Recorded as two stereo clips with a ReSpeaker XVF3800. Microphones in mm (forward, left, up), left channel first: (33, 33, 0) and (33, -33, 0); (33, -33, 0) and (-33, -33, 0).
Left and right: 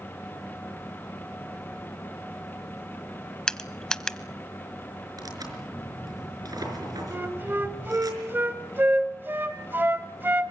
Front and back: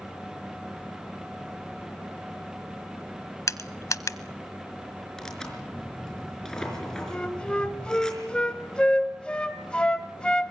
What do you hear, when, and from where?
3.5 s crushing: 10° left, 0.8 m
5.2 s tearing paper: 80° right, 5 m
7.1 s a flute: 65° right, 1.2 m